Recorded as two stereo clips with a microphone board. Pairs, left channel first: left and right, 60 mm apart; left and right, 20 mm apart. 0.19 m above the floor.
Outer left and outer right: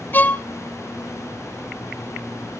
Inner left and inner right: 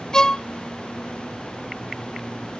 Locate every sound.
0.1 s a violin: 30° left (ahead or behind), 0.6 m